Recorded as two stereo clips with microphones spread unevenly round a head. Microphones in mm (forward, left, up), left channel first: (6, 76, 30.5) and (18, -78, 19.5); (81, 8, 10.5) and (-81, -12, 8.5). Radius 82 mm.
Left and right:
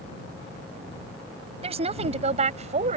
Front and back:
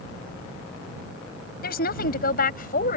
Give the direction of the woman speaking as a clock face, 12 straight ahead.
1 o'clock.